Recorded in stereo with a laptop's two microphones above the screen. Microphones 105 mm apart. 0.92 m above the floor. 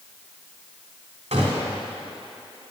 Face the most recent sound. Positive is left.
turn(degrees=-80)